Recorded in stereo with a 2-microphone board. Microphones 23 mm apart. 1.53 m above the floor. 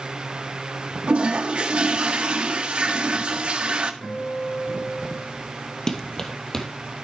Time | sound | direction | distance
1.1 | a toilet flushing | 55° right (ahead or behind) | 1.6 m
4.0 | a guitar | 75° left (ahead or behind) | 8 m
5.9 | running footsteps | 25° left (ahead or behind) | 2.5 m